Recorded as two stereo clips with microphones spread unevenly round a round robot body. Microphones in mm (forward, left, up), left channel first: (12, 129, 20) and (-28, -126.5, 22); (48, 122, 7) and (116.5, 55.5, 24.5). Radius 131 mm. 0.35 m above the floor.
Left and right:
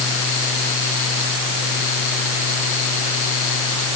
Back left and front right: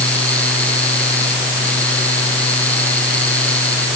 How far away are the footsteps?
I don't hear footsteps.